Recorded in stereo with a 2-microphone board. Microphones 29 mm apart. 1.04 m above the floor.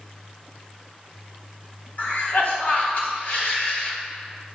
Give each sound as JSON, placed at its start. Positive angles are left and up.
{"t": 2.0, "sound": "a cough", "side_deg": 50, "distance_m": 2.5}